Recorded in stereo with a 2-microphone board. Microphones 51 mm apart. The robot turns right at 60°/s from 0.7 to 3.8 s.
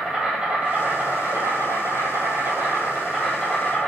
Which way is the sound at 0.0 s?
170° right.